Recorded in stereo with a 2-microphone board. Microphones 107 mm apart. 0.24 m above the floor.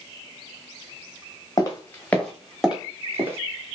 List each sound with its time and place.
1.6 s footsteps: 35° left (ahead or behind), 1.5 m; by 3.4 s 25° right (ahead or behind), 1.9 m